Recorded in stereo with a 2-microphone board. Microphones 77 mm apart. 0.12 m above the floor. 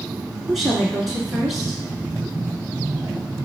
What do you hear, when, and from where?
0.5 s a woman speaking: 5° right (ahead or behind), 1.2 m